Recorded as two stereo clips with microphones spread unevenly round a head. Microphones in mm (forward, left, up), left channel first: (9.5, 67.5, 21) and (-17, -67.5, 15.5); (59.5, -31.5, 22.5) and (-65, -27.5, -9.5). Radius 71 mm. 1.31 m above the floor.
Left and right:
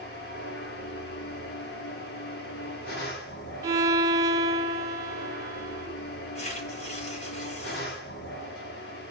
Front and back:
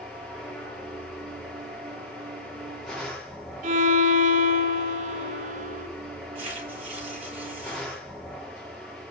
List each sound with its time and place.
0.0 s a machine running: 90° left, 3.5 m
3.6 s a violin: 170° right, 3 m
6.3 s tearing paper: 120° left, 8 m